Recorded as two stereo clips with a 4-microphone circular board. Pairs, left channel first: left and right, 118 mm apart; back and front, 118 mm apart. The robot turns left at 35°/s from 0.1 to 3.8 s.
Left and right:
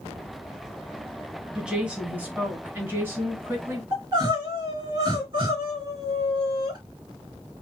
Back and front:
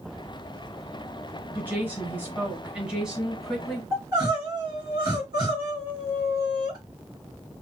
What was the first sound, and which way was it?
A woman speaking, 20° right.